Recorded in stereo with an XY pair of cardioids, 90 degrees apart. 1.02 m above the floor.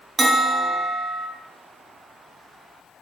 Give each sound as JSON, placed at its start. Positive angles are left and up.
{"t": 0.2, "sound": "a bell", "azimuth_deg": -25, "distance_m": 0.8}